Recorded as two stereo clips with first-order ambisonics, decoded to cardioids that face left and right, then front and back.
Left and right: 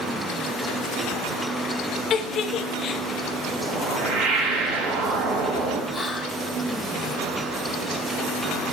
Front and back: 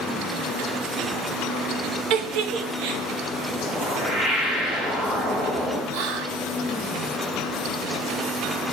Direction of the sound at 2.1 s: 150° left.